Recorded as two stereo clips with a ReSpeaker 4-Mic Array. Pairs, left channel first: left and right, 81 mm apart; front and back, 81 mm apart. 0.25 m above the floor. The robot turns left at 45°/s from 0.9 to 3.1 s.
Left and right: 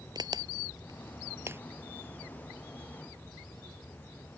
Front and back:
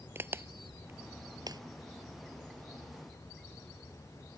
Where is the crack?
120° right; by 1.6 s 150° right.